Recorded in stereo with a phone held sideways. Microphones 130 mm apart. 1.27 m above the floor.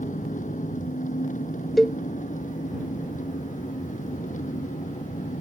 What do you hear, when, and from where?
0.0 s an engine running: 75° left (ahead or behind)
1.8 s a cowbell: centre (ahead or behind)